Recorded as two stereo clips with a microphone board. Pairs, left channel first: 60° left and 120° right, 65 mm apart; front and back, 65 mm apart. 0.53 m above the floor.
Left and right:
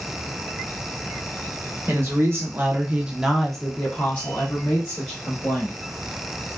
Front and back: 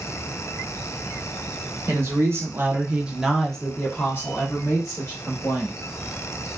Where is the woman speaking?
155° right, 1.0 m; by 5.7 s 20° left, 1.4 m.